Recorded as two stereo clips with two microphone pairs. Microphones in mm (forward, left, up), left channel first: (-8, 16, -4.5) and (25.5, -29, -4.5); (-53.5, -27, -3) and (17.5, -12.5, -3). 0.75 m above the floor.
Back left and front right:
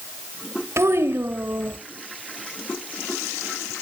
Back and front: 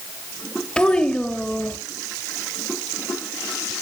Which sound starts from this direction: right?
A child speaking, at 0.8 s.